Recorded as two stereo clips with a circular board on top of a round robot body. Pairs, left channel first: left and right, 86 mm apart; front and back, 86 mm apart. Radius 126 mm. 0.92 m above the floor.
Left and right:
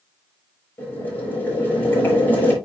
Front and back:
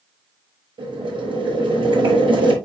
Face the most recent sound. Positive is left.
turn(degrees=160)